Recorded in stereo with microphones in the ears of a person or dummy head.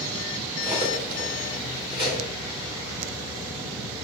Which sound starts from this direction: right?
Cutlery clinking, at 0.6 s.